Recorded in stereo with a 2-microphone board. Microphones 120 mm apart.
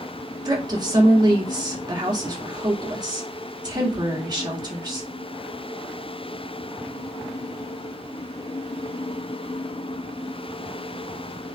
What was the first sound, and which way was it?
A woman speaking, 35° right (ahead or behind).